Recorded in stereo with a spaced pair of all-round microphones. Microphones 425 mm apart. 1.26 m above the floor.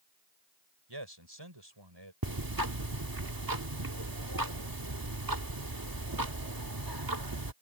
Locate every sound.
0.9 s a man speaking: 70° right (ahead or behind); by 2.1 s 75° right (ahead or behind)
2.2 s ticking: 55° right (ahead or behind)